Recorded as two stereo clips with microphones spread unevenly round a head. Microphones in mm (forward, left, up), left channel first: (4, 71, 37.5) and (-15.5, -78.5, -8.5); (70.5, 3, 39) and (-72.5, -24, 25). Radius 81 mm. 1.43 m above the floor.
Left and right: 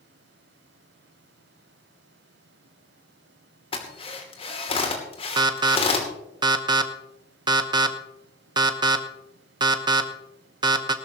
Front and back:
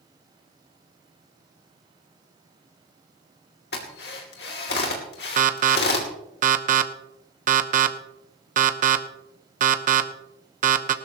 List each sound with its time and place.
3.7 s a drill: 30° left, 2.5 m
5.4 s an alarm: 150° right, 1.0 m